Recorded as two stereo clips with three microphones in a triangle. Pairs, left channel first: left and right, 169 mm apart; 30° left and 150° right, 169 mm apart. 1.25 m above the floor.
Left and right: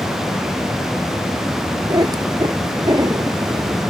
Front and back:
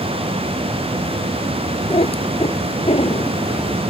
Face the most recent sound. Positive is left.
turn(degrees=-25)